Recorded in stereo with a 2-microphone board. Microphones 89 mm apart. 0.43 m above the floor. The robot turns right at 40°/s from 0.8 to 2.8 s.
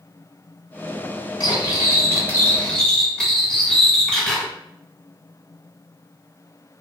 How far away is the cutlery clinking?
About 0.9 m.